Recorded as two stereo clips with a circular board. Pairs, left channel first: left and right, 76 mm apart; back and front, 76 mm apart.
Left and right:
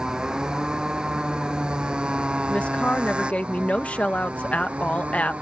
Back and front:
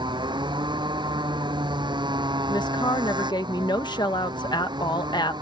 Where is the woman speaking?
160° left.